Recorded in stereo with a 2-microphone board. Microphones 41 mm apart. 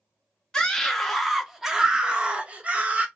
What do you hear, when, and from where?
0.5 s a scream: 15° left (ahead or behind), 1.0 m; by 3.1 s 35° right (ahead or behind), 1.3 m